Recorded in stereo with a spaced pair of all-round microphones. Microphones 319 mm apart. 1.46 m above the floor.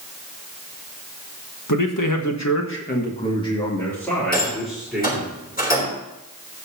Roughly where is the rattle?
Left.